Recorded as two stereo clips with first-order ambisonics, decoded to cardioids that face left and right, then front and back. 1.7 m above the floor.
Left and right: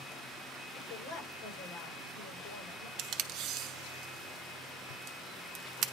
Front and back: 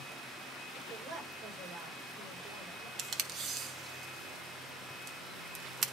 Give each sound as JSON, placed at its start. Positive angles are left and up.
{"t": 0.8, "sound": "a woman speaking", "azimuth_deg": 115, "distance_m": 5.5}
{"t": 3.0, "sound": "tape being pulled", "azimuth_deg": -125, "distance_m": 0.9}